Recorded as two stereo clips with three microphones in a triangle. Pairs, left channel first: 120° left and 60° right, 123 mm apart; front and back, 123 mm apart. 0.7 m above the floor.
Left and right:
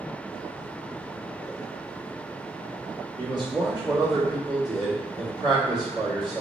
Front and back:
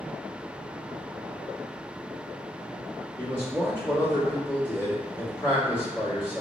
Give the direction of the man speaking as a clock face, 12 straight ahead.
2 o'clock.